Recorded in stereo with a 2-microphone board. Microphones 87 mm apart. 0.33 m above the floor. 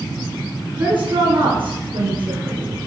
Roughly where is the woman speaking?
Right.